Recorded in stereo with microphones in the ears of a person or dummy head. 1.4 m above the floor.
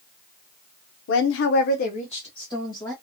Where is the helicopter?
No helicopter in this recording.